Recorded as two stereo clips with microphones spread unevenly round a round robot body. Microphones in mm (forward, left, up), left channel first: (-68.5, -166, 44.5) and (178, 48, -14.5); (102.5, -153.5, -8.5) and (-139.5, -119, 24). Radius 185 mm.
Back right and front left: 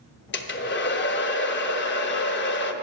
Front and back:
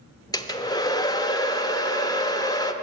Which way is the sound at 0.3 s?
80° right.